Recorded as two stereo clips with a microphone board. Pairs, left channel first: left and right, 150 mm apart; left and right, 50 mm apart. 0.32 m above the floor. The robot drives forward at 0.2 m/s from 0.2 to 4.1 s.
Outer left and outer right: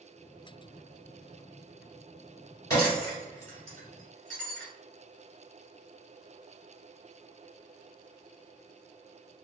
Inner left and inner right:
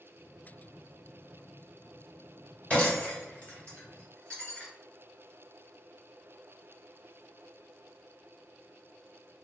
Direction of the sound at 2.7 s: 25° left (ahead or behind).